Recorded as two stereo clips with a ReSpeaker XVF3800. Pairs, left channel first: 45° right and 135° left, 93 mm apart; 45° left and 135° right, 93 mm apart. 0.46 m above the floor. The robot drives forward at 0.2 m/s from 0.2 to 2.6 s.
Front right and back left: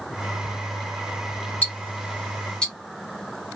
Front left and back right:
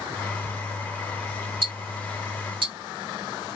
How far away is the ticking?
About 1.4 m.